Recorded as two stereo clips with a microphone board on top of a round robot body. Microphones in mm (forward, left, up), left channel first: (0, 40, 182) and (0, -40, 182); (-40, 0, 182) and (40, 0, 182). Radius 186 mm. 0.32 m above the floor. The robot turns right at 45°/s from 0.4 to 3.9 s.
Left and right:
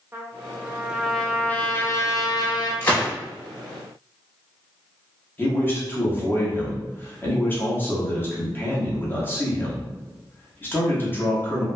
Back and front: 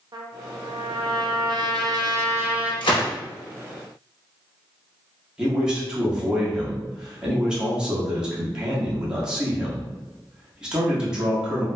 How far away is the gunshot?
About 0.9 m.